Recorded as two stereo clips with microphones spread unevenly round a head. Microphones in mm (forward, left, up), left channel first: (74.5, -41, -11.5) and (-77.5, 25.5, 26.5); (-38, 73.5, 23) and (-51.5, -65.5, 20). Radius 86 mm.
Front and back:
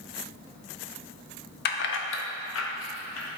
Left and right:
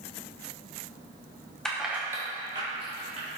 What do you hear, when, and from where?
1.6 s keys jangling: straight ahead, 0.9 m; by 3.3 s 35° right, 2.0 m